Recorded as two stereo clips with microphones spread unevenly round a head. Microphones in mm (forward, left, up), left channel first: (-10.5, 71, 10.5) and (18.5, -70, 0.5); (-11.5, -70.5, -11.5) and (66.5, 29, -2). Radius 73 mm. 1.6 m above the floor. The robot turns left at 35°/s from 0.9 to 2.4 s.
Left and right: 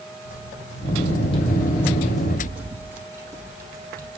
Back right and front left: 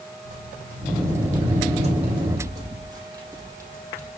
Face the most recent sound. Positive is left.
turn(degrees=-15)